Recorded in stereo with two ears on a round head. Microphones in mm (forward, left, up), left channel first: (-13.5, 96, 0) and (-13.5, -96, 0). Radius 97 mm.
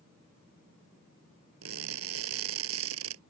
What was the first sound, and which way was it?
Crushing, 75° right (ahead or behind).